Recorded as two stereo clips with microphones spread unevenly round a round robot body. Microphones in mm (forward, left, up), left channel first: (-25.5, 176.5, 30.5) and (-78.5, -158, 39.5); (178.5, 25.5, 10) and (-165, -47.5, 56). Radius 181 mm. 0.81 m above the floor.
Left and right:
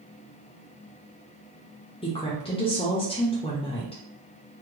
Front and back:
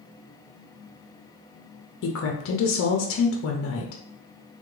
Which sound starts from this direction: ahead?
A woman speaking, at 2.0 s.